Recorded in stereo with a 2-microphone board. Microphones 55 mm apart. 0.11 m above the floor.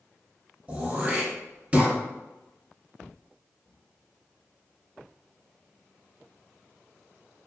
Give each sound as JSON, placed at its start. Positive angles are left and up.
{"t": 0.7, "sound": "throat clearing", "side_deg": -25, "distance_m": 1.2}